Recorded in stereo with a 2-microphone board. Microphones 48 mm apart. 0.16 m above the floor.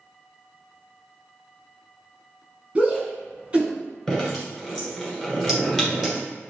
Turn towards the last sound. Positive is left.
turn(degrees=10)  # may be behind; listen again after turning